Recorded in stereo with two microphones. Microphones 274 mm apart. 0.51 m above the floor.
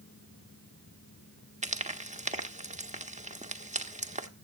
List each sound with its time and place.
1.6 s frying: 25° right (ahead or behind), 1.3 m